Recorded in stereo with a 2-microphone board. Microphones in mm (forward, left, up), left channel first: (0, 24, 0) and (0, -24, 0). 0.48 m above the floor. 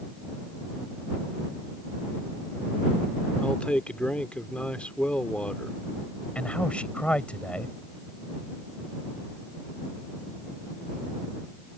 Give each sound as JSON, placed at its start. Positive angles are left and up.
{"t": 3.4, "sound": "a man speaking", "side_deg": 25}
{"t": 6.3, "sound": "a man speaking", "side_deg": 25}